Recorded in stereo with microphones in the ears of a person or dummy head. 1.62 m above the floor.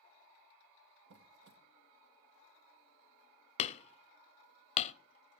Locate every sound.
1.1 s a squeak: 50° right (ahead or behind), 0.8 m
3.6 s hammering: 35° left (ahead or behind), 0.6 m